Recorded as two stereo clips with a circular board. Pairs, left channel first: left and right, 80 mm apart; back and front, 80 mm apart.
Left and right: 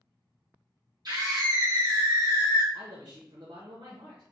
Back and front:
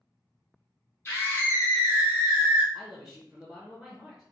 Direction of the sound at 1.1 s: 120° right.